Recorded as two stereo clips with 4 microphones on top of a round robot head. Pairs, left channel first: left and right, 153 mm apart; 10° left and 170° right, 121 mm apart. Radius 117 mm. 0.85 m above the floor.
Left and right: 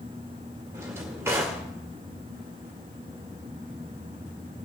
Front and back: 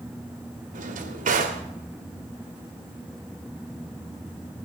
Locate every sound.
0.7 s a drawer: 165° right, 1.6 m